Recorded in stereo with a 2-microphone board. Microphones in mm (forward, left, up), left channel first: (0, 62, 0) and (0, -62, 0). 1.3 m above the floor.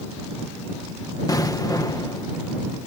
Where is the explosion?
30° left (ahead or behind).